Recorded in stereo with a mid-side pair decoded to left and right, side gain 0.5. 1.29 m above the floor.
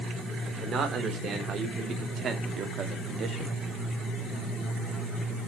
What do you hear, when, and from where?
0.5 s a man speaking: 50° right, 4.5 m; by 3.6 s 45° right, 2 m